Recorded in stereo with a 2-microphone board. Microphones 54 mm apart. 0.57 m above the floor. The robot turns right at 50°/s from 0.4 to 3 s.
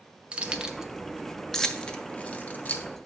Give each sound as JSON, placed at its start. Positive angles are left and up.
{"t": 0.3, "sound": "keys jangling", "side_deg": -20, "distance_m": 0.5}